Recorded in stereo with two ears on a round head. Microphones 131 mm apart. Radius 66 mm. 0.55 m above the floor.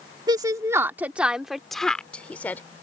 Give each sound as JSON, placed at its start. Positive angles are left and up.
{"t": 0.3, "sound": "a woman speaking", "side_deg": -30}